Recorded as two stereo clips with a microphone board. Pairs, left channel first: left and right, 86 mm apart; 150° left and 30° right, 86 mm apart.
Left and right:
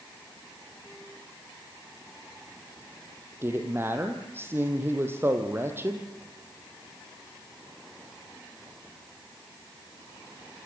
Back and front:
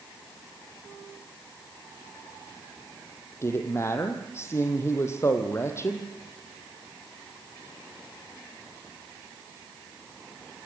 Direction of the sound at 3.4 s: 150° right.